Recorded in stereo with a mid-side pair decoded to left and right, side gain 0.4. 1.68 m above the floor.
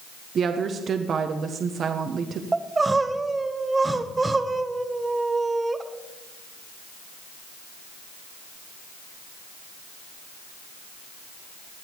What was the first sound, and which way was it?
A woman speaking, 60° right.